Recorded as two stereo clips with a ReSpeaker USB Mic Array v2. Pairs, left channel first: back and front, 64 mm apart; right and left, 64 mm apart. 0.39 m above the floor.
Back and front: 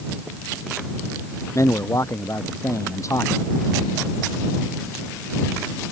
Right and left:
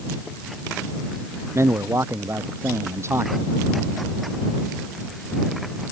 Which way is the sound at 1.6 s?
140° left.